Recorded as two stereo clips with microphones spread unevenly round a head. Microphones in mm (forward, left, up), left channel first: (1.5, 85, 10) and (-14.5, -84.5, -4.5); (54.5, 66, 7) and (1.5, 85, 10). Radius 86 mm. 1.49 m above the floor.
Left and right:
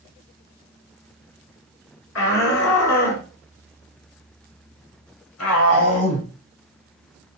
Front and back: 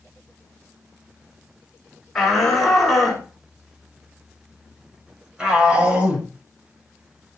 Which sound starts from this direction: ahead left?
A shout, at 2.1 s.